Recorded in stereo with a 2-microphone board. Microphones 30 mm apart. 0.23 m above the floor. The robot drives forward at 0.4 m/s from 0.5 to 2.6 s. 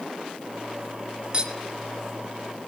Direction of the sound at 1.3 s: 35° right (ahead or behind).